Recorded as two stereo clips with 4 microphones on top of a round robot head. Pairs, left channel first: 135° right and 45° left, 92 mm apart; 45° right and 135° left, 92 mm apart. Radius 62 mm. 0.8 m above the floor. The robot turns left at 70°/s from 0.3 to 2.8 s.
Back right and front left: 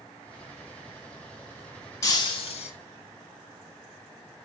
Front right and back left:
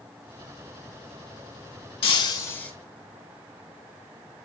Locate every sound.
2.0 s breaking glass: 75° right, 3 m; by 2.7 s 125° right, 3 m